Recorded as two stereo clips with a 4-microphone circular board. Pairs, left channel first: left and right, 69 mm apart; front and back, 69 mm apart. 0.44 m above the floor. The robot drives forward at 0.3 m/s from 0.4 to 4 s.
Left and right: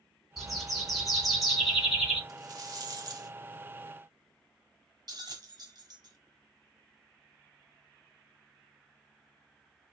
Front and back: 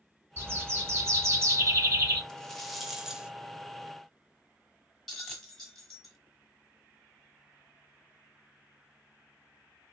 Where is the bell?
85° right, 1.1 m.